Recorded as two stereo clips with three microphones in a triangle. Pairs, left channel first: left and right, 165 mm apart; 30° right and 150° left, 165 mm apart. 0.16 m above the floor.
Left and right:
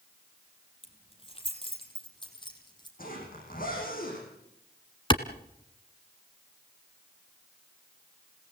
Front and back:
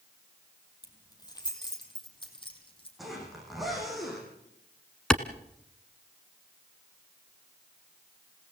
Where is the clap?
50° left, 1.2 m.